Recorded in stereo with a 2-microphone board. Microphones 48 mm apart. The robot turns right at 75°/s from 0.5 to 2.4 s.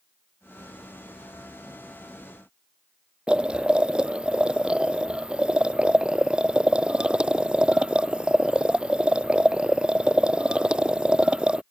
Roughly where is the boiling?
Right.